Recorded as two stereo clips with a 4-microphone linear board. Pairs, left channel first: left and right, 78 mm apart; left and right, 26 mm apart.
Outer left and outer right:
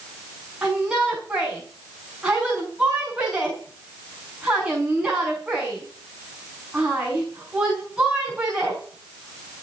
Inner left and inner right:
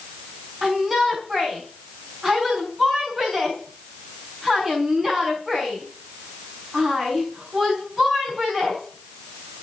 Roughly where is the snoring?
I don't hear snoring.